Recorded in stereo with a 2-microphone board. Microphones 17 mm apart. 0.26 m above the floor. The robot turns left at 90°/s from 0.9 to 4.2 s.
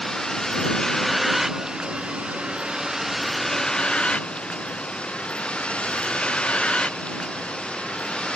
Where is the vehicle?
35° left; by 8.4 s 95° left.